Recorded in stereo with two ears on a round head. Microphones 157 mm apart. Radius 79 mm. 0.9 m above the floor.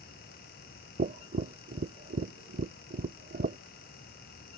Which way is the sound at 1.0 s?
45° right (ahead or behind).